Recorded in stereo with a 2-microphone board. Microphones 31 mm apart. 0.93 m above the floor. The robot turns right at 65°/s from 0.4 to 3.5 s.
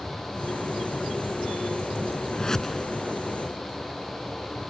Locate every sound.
2.3 s a whoosh: 35° left (ahead or behind); by 2.9 s 5° left (ahead or behind)